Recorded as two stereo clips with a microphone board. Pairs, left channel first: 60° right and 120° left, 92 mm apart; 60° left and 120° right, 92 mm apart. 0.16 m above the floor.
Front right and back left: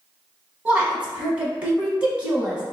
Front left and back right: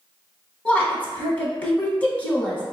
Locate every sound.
0.7 s a woman speaking: 80° left, 1.0 m